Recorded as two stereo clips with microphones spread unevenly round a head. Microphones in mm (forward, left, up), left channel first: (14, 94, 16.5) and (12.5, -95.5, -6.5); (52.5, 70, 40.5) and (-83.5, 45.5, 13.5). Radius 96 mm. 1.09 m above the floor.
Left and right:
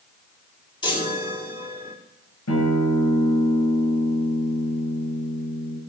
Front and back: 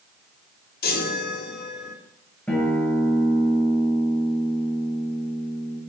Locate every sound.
0.8 s a chime: 20° left, 3 m
2.5 s a guitar: 90° left, 8 m